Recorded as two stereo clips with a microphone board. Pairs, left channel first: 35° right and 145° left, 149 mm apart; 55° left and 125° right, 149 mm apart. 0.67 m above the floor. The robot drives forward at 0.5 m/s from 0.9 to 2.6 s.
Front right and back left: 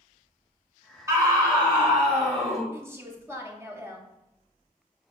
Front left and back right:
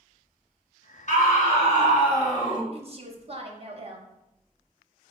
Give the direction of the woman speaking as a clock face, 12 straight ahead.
5 o'clock.